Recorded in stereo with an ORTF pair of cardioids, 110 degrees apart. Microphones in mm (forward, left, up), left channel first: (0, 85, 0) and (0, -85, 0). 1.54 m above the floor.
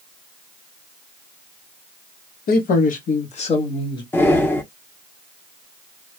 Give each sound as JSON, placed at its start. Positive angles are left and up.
{"t": 2.5, "sound": "a man speaking", "azimuth_deg": 70, "distance_m": 1.2}
{"t": 4.1, "sound": "breathing", "azimuth_deg": 15, "distance_m": 0.8}